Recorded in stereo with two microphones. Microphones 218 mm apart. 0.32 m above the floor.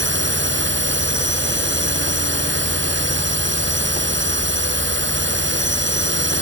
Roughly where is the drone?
Right.